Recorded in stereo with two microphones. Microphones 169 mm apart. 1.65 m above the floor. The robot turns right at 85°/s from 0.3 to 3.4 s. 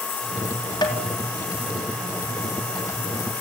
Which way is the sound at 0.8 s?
25° left (ahead or behind).